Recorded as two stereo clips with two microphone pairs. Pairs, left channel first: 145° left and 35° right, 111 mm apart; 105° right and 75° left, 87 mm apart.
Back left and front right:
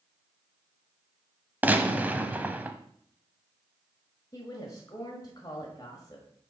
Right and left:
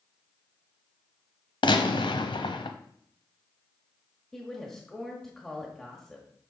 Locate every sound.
1.6 s a gunshot: 110° right, 0.7 m
4.3 s a woman speaking: 175° left, 1.4 m